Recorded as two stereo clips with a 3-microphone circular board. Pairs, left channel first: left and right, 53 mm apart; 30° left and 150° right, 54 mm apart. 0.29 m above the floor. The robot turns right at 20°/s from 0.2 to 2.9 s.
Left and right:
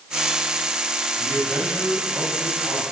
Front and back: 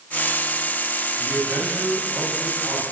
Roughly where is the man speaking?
Behind.